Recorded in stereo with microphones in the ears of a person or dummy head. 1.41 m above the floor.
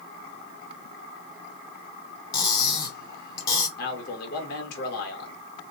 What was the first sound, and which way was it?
Cutlery clinking, 25° left (ahead or behind).